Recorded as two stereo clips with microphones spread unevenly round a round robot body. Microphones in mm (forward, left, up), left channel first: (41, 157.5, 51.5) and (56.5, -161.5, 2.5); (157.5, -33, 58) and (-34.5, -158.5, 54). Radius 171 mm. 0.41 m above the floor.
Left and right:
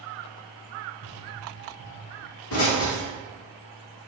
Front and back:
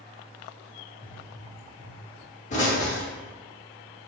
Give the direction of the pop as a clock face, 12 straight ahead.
10 o'clock.